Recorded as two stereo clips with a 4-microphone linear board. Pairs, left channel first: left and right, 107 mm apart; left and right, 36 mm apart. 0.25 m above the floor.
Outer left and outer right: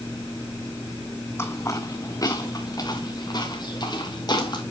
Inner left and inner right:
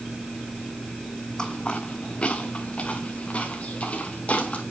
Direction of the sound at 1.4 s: 25° left (ahead or behind).